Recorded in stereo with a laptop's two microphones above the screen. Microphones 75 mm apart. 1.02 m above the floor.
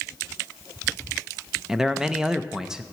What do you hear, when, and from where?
1.7 s a man speaking: 10° right (ahead or behind), 0.6 m